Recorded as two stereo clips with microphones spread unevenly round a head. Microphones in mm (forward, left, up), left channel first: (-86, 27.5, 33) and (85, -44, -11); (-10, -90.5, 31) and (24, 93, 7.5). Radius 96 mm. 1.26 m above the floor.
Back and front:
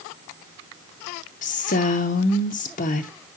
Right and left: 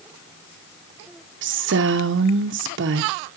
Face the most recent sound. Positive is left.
turn(degrees=105)